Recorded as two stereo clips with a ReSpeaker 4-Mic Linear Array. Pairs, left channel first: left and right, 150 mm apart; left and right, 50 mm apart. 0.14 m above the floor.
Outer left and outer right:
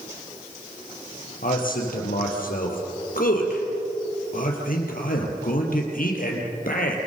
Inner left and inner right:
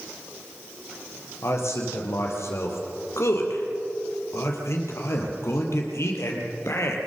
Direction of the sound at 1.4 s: 70° left (ahead or behind).